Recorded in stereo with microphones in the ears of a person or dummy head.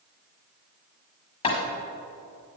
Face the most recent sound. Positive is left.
turn(degrees=30)  # may be behind; listen again after turning